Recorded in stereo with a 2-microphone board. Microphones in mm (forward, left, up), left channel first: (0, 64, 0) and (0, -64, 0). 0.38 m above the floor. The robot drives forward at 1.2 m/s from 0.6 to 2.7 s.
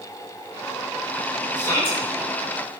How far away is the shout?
About 3.5 m.